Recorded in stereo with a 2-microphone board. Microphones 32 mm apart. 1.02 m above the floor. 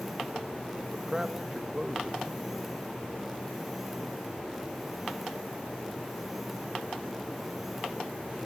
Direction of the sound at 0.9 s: 25° right (ahead or behind).